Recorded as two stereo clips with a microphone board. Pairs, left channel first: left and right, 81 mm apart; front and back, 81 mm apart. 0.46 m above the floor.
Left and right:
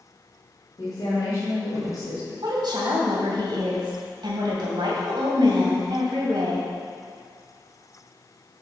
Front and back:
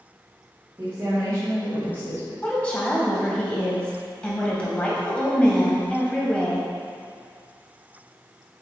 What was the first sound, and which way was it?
A woman speaking, 130° left.